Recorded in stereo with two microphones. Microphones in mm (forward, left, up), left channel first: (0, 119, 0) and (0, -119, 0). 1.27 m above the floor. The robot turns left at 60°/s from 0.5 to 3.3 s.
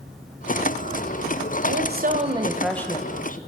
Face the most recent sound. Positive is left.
turn(degrees=145)